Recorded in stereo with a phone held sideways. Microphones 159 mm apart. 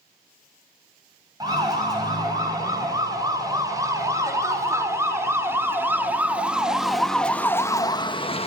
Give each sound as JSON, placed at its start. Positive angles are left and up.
{"t": 1.4, "sound": "a siren", "side_deg": -25, "distance_m": 7.0}